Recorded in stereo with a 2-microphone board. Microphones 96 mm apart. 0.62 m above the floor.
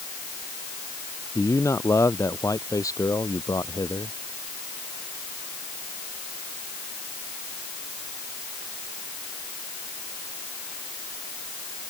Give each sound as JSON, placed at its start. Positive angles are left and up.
{"t": 1.4, "sound": "a man speaking", "side_deg": 30}